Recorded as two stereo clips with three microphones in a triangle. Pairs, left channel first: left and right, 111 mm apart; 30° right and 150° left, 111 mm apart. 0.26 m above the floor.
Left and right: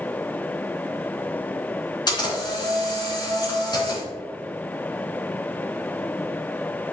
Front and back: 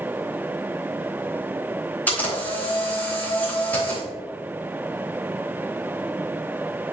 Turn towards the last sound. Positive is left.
turn(degrees=45)